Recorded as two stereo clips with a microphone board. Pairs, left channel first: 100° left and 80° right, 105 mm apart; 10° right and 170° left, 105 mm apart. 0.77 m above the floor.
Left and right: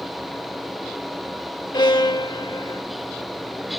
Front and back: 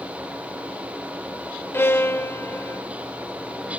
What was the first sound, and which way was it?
A violin, 55° left.